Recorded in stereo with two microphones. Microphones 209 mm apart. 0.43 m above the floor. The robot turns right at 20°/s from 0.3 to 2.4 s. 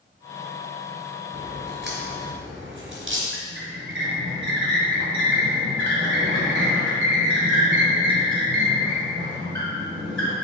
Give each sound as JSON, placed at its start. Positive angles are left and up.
{"t": 1.3, "sound": "a crack", "side_deg": -50, "distance_m": 2.0}
{"t": 3.3, "sound": "a squeak", "side_deg": -70, "distance_m": 1.9}